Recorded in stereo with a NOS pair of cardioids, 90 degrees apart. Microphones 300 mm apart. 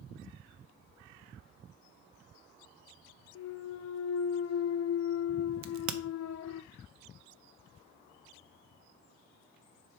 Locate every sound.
3.4 s a clunk: 60° left, 0.6 m
5.6 s a crack: 65° right, 0.7 m